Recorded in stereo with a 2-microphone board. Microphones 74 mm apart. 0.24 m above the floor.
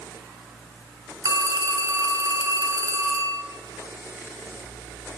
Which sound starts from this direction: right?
A phone ringing, at 1.2 s.